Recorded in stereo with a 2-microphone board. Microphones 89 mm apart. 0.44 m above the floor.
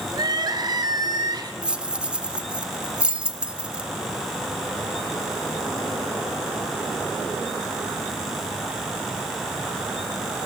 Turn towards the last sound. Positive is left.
turn(degrees=-10)  # may be behind; listen again after turning